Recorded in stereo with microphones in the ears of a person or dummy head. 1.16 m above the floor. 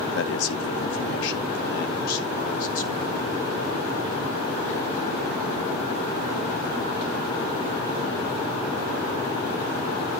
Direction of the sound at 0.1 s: 70° left (ahead or behind).